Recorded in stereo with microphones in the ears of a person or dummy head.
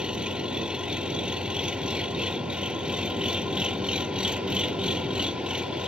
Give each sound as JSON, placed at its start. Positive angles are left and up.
{"t": 0.0, "sound": "an engine running", "side_deg": -5}